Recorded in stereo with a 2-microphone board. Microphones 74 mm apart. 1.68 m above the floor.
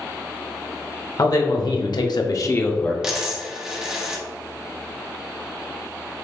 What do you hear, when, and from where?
1.2 s a man speaking: 55° left (ahead or behind), 1.0 m; by 2.9 s 20° left (ahead or behind), 0.8 m
3.0 s a dropped coin: 10° right (ahead or behind), 1.0 m